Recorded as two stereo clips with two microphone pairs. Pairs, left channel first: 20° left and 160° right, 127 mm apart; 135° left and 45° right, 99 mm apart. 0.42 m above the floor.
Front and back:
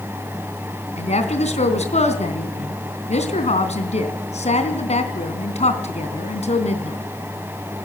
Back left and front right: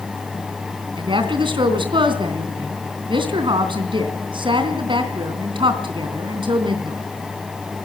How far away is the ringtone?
I don't hear a ringtone.